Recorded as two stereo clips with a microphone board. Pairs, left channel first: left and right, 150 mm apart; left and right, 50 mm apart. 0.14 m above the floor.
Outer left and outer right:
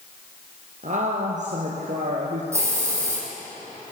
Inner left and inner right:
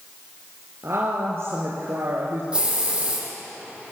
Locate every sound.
0.8 s a woman speaking: 55° right (ahead or behind), 3 m
2.5 s a hiss: 20° right (ahead or behind), 7 m